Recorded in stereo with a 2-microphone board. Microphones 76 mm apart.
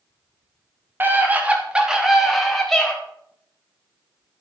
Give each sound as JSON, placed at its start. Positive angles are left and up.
{"t": 1.0, "sound": "a scream", "side_deg": -25, "distance_m": 3.0}